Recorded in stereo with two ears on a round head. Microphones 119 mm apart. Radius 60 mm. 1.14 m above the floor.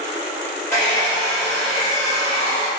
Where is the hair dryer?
15° left (ahead or behind), 1.6 m.